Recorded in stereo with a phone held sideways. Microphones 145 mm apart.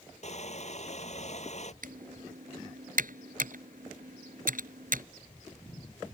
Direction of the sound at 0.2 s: 50° left (ahead or behind).